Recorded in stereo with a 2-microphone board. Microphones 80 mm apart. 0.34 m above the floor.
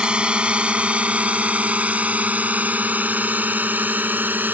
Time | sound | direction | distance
0.0 | a drone | 15° right (ahead or behind) | ?